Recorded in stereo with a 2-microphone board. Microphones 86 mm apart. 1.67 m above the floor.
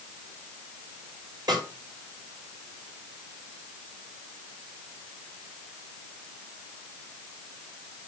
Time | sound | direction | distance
1.5 | a snare drum | 55° right (ahead or behind) | 4.5 m